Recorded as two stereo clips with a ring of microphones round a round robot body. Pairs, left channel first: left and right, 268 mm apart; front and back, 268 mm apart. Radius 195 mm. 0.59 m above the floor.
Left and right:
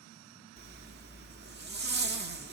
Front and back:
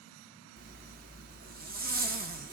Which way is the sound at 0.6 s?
130° right.